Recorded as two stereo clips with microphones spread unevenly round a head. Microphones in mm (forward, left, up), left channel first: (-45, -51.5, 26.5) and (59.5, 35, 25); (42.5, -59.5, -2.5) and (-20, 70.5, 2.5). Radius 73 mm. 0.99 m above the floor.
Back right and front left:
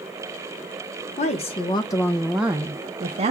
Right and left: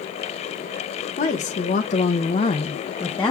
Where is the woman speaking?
105° right, 1.0 m; by 3.3 s 10° left, 0.9 m.